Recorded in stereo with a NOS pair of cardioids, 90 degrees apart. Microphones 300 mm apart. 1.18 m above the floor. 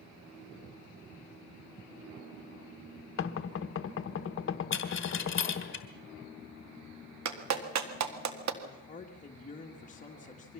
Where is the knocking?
45° left, 1.1 m.